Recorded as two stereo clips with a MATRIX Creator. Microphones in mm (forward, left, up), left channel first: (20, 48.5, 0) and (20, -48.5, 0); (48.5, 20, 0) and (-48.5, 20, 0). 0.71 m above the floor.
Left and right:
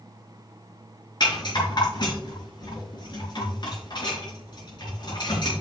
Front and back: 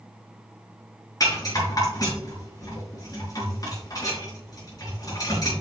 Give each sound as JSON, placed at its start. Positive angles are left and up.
{"t": 1.2, "sound": "a rattle", "azimuth_deg": 50, "distance_m": 4.0}